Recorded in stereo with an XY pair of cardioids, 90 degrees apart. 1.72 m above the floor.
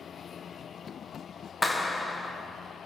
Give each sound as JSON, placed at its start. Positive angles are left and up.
{"t": 1.6, "sound": "a clap", "azimuth_deg": 15, "distance_m": 1.2}